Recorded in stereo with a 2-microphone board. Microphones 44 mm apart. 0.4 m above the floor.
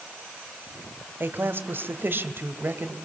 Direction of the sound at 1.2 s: 50° right (ahead or behind).